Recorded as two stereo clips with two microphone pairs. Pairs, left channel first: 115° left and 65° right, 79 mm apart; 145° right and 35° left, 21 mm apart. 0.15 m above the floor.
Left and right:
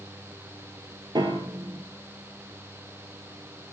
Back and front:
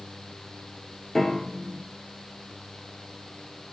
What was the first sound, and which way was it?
A piano, 75° right.